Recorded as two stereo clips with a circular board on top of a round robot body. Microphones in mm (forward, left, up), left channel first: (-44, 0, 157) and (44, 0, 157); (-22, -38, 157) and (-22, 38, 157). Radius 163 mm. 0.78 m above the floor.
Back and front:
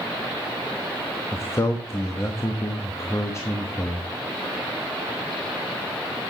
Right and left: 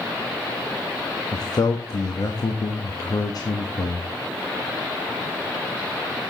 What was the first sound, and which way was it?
A man speaking, 120° right.